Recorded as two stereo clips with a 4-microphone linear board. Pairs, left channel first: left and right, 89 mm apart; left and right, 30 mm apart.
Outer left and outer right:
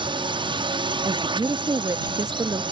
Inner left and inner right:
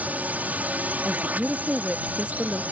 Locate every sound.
0.0 s a drone: 70° right (ahead or behind)
1.1 s a woman speaking: 50° right (ahead or behind)